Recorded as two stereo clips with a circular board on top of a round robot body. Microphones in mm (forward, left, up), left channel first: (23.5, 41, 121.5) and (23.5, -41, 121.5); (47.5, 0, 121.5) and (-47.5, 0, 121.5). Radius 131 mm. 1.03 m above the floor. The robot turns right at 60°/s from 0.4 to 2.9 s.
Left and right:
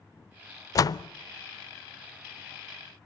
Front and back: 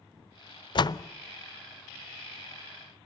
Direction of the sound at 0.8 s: 40° left.